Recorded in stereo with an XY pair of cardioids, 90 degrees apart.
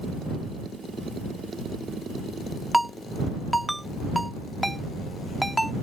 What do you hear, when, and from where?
2.7 s a ringtone: 5° right